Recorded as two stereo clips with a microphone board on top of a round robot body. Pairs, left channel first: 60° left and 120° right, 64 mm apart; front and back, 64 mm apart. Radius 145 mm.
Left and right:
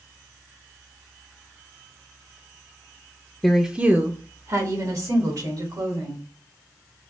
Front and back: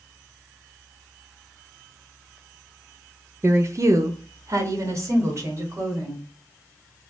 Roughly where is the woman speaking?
Behind left.